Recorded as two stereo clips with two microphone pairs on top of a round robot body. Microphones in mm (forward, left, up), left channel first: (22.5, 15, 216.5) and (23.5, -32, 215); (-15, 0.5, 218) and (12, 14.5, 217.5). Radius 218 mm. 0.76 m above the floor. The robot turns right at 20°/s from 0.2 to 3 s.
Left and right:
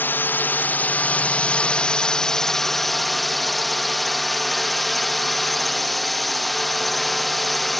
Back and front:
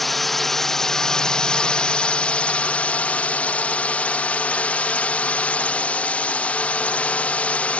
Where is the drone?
125° left; by 7.8 s straight behind.